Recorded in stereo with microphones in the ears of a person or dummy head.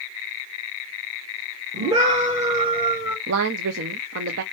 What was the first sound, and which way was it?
A scream, 35° right (ahead or behind).